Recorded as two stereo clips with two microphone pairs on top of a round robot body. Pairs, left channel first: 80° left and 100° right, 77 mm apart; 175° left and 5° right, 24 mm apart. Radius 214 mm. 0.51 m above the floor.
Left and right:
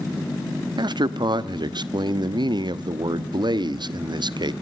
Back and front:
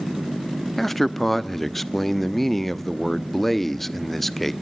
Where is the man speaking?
110° right, 1.3 m.